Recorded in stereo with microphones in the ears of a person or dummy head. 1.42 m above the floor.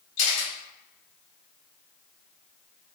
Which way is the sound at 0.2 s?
80° left.